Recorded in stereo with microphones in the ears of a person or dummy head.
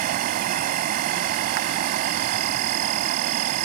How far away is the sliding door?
No sliding door in this recording.